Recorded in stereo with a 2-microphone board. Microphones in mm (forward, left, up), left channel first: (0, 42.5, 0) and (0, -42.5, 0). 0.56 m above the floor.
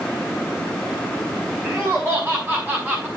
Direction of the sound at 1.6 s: 15° right (ahead or behind).